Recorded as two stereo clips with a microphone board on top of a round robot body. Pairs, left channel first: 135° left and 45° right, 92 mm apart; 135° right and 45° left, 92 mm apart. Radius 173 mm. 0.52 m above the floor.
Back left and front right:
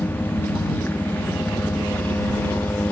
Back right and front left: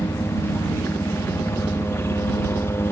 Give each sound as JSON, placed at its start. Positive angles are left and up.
{"t": 0.0, "sound": "a helicopter", "azimuth_deg": -175}